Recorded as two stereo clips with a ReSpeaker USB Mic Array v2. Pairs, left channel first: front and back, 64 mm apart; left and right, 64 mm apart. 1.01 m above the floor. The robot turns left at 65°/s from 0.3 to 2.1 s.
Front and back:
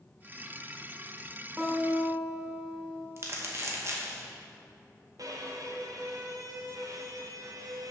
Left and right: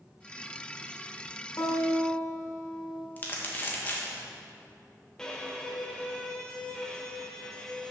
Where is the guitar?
125° left, 1.5 m; by 3.1 s 90° left, 1.5 m.